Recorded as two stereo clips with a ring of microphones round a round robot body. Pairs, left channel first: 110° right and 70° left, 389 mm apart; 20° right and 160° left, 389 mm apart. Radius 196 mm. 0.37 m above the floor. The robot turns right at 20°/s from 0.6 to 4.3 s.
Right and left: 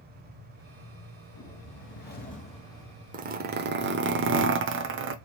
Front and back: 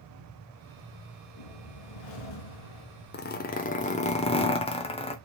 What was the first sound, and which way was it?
A whoosh, 60° right.